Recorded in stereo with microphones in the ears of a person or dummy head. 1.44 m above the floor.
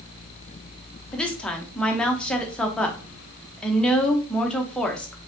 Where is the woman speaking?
5° left (ahead or behind), 0.8 m.